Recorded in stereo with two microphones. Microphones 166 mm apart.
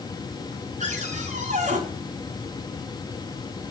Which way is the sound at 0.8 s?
45° right (ahead or behind).